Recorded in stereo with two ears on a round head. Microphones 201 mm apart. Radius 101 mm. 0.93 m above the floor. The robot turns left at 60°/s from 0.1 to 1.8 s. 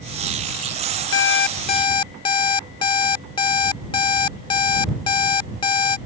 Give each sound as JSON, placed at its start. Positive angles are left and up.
{"t": 1.1, "sound": "an alarm clock", "azimuth_deg": 65}